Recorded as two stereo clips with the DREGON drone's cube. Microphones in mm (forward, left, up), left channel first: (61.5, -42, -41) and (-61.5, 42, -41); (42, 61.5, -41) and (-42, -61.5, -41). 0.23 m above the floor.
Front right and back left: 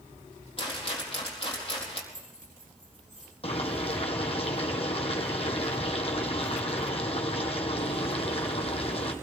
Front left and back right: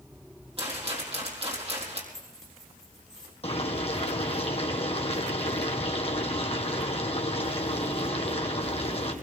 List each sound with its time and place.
0.6 s a rattle: 80° right, 4 m
2.1 s keys jangling: 145° left, 8.5 m
3.4 s boiling: 10° left, 1.9 m